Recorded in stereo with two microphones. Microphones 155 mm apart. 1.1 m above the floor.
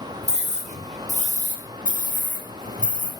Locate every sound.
0.2 s a scream: 50° right (ahead or behind), 5 m; by 3.1 s 60° right (ahead or behind), 6 m